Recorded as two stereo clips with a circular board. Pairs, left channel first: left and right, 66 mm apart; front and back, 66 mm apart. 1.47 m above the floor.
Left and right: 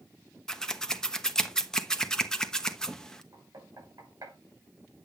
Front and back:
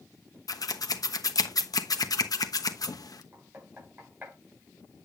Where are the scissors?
10° left, 1.1 m.